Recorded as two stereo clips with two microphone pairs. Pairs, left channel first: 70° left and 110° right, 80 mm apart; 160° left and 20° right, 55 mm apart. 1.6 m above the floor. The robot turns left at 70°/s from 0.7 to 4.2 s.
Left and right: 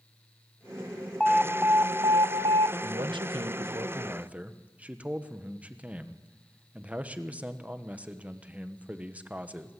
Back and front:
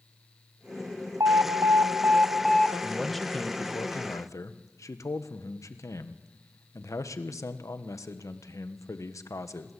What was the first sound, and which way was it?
An alarm, 15° right.